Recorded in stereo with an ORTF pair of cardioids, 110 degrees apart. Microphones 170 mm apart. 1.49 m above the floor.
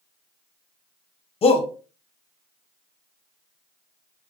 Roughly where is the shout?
Ahead left.